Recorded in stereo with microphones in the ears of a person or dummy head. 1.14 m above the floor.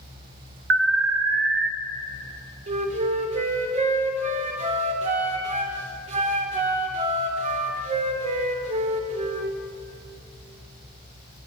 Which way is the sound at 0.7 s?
60° right (ahead or behind).